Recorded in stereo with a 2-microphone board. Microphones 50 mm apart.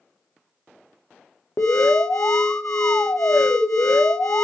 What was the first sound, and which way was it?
An alarm, 70° left (ahead or behind).